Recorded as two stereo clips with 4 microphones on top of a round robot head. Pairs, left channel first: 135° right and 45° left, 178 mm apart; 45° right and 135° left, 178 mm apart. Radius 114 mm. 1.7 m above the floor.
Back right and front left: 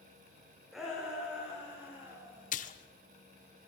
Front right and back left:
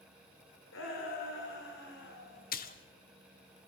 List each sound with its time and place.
0.7 s a shout: 45° right, 7 m; by 2.5 s 30° right, 9 m
2.5 s a splash: 90° right, 1.8 m